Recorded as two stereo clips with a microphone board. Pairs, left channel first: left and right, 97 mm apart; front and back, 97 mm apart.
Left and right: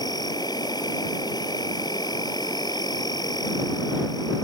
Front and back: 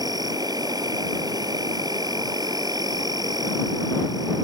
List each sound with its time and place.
0.0 s an insect: 135° left